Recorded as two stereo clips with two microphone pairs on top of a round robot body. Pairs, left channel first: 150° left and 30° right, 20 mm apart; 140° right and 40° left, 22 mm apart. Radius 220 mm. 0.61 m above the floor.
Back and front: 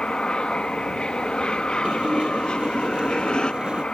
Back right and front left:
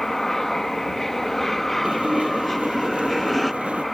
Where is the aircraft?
150° left; by 4.0 s 135° left.